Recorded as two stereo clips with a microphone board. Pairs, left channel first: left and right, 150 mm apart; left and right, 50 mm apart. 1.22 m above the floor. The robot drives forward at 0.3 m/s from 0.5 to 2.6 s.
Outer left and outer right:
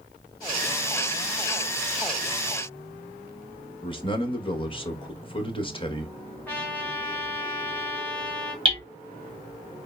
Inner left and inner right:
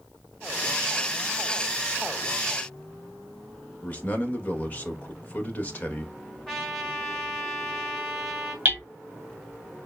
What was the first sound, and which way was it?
A man speaking, 35° left (ahead or behind).